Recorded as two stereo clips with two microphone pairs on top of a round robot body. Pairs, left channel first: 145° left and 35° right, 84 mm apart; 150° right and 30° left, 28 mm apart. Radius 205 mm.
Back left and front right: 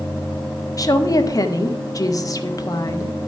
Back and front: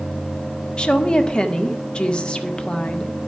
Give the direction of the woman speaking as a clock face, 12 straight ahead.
6 o'clock.